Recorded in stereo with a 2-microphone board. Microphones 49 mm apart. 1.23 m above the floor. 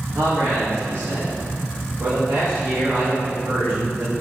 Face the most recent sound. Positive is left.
turn(degrees=-80)